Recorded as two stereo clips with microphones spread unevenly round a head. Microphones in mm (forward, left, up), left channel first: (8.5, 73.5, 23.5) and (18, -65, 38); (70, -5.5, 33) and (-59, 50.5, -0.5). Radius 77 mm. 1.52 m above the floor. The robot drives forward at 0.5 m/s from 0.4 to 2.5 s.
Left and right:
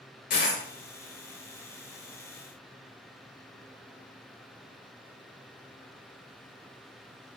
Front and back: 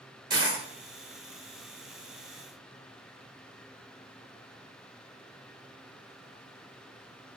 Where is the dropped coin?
90° left, 1.9 m; by 0.6 s 95° left, 1.9 m.